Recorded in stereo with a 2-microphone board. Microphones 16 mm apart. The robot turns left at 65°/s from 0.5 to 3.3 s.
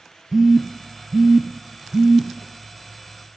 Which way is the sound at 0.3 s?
20° right (ahead or behind).